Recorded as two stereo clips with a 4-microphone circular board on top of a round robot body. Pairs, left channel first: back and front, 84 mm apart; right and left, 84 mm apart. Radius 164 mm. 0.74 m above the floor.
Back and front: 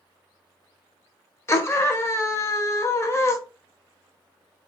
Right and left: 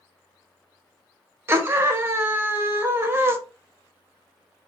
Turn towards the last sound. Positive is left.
turn(degrees=140)